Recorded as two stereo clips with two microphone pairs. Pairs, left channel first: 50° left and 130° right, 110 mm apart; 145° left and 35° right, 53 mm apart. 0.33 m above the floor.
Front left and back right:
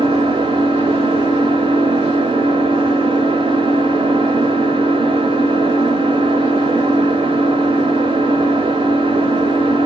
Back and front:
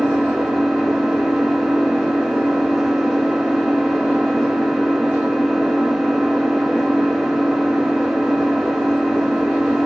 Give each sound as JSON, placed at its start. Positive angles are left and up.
{"t": 0.0, "sound": "an engine running", "azimuth_deg": -120, "distance_m": 0.8}